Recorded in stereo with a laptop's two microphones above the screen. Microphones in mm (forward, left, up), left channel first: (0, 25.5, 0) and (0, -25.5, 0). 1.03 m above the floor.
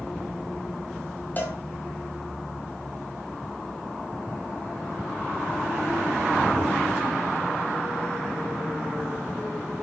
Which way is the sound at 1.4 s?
35° left (ahead or behind).